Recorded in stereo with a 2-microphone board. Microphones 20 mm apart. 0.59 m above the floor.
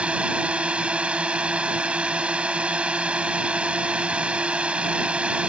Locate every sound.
0.0 s a drone: 55° right (ahead or behind)